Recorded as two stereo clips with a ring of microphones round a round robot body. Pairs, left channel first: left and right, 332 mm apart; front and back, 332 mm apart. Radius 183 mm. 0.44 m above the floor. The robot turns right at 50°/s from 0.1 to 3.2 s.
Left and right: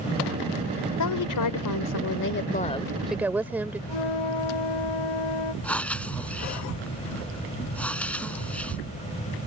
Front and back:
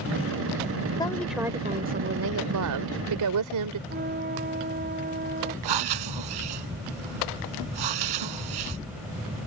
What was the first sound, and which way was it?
A woman speaking, 75° left.